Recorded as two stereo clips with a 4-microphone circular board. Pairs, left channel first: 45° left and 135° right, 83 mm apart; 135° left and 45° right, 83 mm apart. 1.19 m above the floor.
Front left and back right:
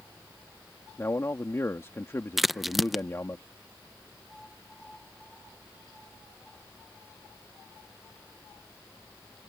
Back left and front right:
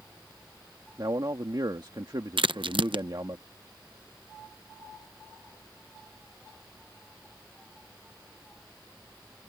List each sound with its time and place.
1.0 s a man speaking: 10° right
2.4 s a crack: 45° right